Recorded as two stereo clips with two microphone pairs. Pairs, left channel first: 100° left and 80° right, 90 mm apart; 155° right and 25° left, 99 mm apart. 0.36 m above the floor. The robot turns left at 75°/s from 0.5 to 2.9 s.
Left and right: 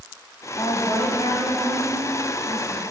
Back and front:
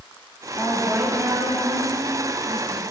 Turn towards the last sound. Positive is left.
turn(degrees=-30)